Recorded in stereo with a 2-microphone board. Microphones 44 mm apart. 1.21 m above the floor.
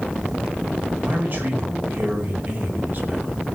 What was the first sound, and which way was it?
A man speaking, 50° right (ahead or behind).